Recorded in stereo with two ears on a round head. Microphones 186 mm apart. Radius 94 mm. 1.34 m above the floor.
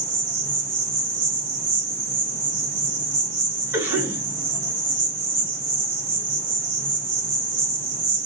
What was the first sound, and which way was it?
An insect, 40° right (ahead or behind).